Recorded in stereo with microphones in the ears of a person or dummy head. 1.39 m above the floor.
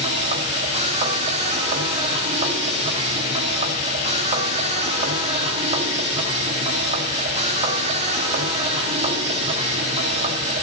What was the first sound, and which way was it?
A machine running, 30° right (ahead or behind).